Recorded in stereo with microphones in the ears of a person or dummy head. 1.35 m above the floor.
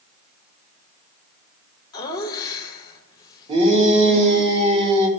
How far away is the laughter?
About 1.4 m.